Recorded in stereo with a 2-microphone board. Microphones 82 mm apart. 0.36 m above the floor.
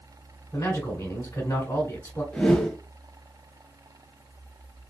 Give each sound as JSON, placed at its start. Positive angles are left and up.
{"t": 0.5, "sound": "a man speaking", "side_deg": 25, "distance_m": 1.8}
{"t": 2.3, "sound": "a whoosh", "side_deg": 15, "distance_m": 0.9}